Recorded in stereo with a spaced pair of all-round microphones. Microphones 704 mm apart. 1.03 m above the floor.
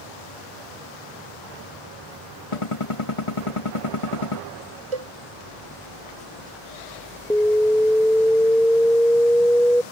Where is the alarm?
5° left (ahead or behind).